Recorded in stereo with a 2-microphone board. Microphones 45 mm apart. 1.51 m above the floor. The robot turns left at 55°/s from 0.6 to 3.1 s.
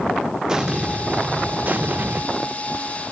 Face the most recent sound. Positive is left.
turn(degrees=-165)